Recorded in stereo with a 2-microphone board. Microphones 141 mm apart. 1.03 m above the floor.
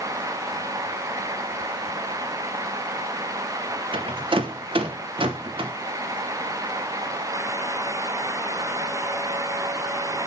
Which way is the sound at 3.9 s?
40° right (ahead or behind).